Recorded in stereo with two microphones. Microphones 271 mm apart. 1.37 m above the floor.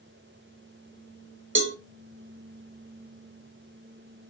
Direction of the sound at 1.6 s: 45° right (ahead or behind).